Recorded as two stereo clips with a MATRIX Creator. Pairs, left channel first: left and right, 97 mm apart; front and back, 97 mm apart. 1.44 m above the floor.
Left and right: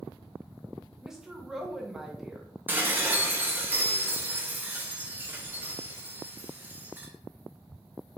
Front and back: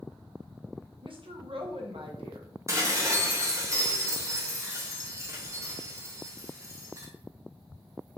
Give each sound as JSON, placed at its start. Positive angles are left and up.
{"t": 1.0, "sound": "a woman speaking", "azimuth_deg": -175, "distance_m": 0.8}
{"t": 2.7, "sound": "dishes clattering", "azimuth_deg": -145, "distance_m": 0.8}